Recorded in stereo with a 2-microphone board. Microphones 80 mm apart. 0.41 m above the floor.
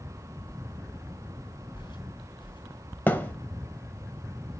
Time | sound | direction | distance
1.7 | footsteps | 75° left (ahead or behind) | 2.5 m
3.1 | a thud | 25° left (ahead or behind) | 1.0 m